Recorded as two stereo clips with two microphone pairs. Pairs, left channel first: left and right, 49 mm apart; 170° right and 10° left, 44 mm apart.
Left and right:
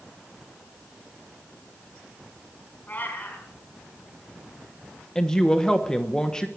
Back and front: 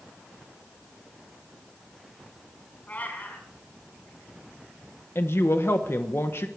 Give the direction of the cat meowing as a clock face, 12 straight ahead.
7 o'clock.